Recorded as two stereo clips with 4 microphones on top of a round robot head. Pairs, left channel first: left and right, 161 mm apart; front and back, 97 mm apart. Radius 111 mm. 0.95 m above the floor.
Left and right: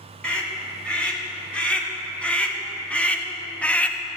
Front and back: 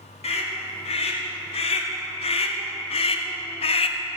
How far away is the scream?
About 4 m.